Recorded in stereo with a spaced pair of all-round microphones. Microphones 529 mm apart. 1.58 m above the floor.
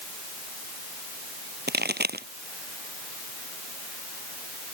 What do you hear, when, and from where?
1.7 s a pop: 20° right (ahead or behind)